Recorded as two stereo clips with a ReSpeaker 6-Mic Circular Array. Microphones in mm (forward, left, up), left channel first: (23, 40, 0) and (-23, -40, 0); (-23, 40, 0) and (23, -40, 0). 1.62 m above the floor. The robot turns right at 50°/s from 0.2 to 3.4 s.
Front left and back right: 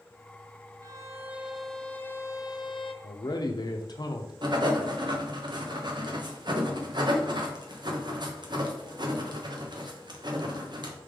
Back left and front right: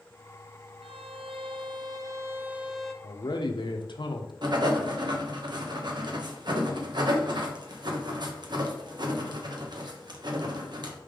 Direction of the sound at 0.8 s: 70° right.